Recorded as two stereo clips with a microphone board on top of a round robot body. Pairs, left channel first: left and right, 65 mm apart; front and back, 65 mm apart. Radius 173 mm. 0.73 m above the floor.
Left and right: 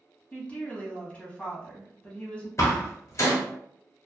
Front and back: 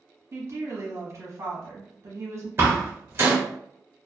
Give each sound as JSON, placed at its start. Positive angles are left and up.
{"t": 0.3, "sound": "a woman speaking", "azimuth_deg": 155, "distance_m": 1.2}
{"t": 2.6, "sound": "a door slam", "azimuth_deg": 130, "distance_m": 1.2}